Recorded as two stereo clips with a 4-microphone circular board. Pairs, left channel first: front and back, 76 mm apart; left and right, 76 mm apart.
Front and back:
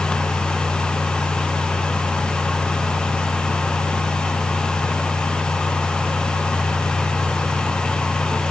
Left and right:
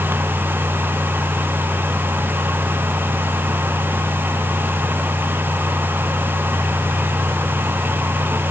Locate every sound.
Only background noise.